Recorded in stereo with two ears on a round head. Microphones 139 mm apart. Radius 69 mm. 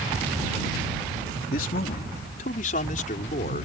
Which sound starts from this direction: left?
A man speaking, at 1.5 s.